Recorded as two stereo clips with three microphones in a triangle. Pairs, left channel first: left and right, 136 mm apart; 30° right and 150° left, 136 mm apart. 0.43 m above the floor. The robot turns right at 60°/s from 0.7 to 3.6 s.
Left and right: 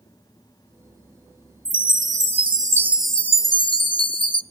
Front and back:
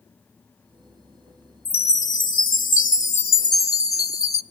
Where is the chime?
85° right, 0.6 m; by 4.4 s 30° left, 0.6 m.